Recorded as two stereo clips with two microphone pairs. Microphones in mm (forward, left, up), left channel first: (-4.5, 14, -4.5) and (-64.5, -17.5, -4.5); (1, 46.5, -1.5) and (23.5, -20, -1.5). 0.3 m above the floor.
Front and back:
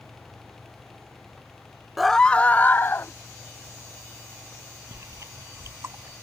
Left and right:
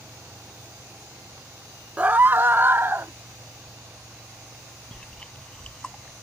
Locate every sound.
2.0 s a scream: 75° right; by 3.1 s 20° right
4.9 s chewing: straight behind